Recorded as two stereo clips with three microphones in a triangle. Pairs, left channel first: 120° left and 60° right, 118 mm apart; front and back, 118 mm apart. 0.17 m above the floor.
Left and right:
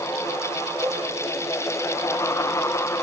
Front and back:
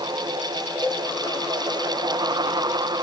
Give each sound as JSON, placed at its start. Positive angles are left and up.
{"t": 0.8, "sound": "a cowbell", "azimuth_deg": -105, "distance_m": 0.6}